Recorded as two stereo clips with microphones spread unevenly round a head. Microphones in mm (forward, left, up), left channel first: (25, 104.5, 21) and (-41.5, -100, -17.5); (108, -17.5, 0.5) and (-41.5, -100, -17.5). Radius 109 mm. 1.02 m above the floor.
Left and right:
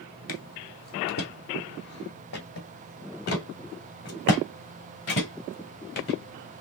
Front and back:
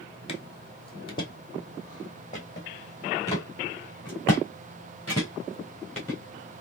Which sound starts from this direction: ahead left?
Footsteps, at 0.3 s.